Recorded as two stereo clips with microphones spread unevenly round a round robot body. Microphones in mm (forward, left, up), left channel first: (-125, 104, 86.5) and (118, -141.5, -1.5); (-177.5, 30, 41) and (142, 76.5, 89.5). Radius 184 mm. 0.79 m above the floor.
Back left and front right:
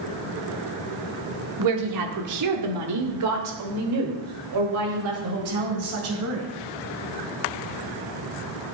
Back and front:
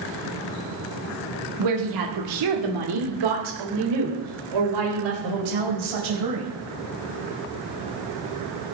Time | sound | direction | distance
1.6 | a woman speaking | 25° right | 2 m